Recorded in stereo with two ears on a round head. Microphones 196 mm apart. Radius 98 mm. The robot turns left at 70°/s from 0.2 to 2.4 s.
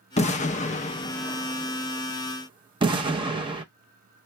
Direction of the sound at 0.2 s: 30° left (ahead or behind).